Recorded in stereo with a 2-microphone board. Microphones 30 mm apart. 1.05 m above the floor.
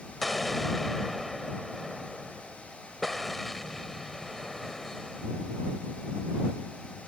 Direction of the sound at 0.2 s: 10° left (ahead or behind).